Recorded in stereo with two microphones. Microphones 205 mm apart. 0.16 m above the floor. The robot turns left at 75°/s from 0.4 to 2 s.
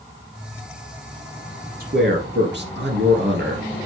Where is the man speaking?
45° right (ahead or behind), 3.5 m; by 3.8 s 55° right (ahead or behind), 3.5 m.